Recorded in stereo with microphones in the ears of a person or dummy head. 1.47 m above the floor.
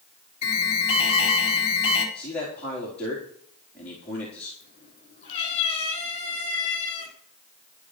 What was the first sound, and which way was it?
An alarm, 40° left (ahead or behind).